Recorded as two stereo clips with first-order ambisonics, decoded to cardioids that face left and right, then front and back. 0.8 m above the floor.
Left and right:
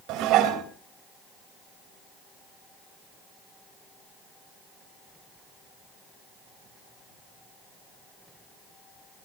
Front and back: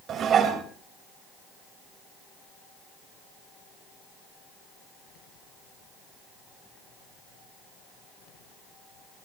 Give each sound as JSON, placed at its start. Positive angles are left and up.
{"t": 0.1, "sound": "dishes clattering", "azimuth_deg": -120, "distance_m": 2.5}